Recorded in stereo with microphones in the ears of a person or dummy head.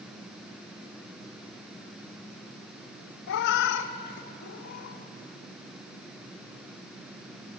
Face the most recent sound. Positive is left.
turn(degrees=55)  # may be behind; listen again after turning